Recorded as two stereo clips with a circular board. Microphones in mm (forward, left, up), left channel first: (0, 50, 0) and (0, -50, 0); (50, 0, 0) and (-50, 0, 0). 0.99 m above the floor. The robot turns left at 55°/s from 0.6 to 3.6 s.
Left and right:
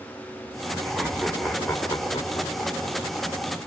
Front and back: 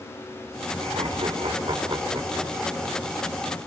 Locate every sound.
0.8 s laughter: 150° right, 3 m; by 3.0 s 95° left, 3 m